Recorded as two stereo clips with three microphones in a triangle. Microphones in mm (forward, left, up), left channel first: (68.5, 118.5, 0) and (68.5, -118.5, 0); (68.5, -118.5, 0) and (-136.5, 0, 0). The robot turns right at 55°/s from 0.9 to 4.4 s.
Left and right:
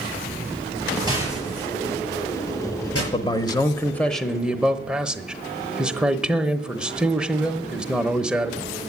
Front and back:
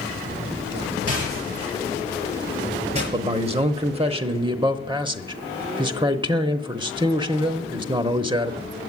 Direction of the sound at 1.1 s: 15° right.